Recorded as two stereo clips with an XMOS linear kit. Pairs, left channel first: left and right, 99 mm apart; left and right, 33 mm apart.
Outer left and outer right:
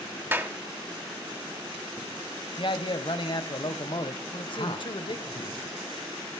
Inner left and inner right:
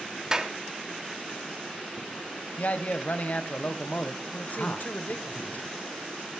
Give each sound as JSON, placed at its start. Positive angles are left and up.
{"t": 0.3, "sound": "a clap", "side_deg": -20, "distance_m": 1.3}
{"t": 2.6, "sound": "a man speaking", "side_deg": 55, "distance_m": 1.6}
{"t": 4.5, "sound": "a man speaking", "side_deg": 60, "distance_m": 3.0}